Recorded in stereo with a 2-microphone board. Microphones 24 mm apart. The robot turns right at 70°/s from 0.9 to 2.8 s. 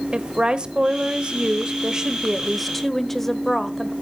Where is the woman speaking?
120° right, 1.0 m; by 3.9 s 10° left, 1.0 m.